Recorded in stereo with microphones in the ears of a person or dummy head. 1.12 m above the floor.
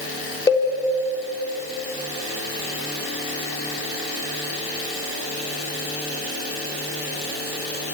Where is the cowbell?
15° left (ahead or behind), 3.5 m.